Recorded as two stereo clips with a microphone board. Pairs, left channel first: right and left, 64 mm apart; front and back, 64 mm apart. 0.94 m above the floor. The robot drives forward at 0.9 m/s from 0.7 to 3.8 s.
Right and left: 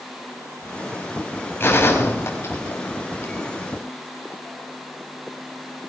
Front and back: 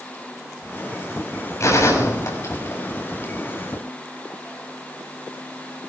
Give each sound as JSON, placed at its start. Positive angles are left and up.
{"t": 1.6, "sound": "a gunshot", "azimuth_deg": -35, "distance_m": 6.0}